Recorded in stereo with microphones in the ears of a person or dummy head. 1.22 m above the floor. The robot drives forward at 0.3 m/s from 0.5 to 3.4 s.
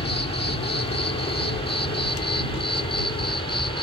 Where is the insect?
30° left (ahead or behind); by 3.9 s 25° left (ahead or behind).